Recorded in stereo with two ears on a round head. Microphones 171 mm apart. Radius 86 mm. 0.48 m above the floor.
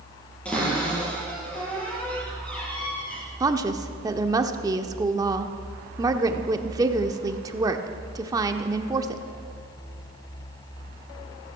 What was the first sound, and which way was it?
A cupboard door, 5° left (ahead or behind).